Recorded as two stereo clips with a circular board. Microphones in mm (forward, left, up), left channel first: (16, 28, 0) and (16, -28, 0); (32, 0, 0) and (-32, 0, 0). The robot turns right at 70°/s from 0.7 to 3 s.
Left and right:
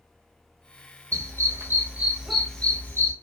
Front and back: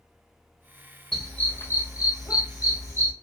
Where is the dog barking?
80° right, 1.7 m; by 3.1 s 50° left, 1.7 m.